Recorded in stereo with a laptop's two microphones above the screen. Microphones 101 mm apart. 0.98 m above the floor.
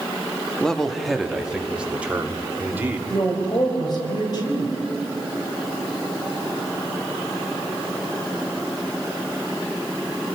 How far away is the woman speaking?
About 4 m.